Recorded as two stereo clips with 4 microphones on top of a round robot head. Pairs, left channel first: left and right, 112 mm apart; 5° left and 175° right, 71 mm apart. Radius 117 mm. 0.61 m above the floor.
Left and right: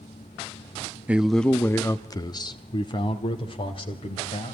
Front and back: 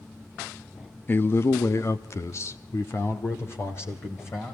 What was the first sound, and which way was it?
A man speaking, 25° right.